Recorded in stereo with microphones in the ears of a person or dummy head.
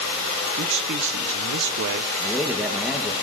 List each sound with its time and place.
0.6 s a man speaking: 55° right (ahead or behind), 0.6 m
2.2 s a man speaking: 5° right (ahead or behind), 0.9 m